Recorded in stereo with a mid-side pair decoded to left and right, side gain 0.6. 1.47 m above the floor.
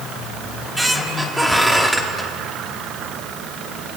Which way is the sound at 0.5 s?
5° right.